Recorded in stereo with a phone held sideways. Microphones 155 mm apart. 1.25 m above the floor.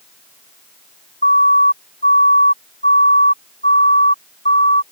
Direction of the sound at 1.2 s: 75° left (ahead or behind).